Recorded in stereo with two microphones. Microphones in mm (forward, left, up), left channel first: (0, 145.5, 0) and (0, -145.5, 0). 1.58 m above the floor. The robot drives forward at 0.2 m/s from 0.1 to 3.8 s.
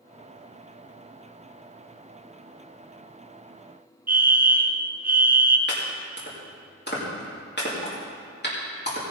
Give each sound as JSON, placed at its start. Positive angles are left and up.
{"t": 4.1, "sound": "a fire alarm", "side_deg": -30, "distance_m": 0.8}
{"t": 5.7, "sound": "chopping", "side_deg": 35, "distance_m": 3.0}